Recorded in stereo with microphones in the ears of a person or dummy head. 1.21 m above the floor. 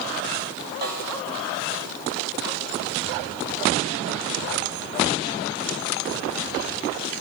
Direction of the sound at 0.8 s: 55° right (ahead or behind).